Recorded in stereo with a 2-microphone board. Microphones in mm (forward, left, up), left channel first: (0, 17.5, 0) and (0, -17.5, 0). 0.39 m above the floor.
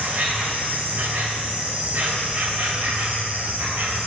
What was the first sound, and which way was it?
An insect, 60° right (ahead or behind).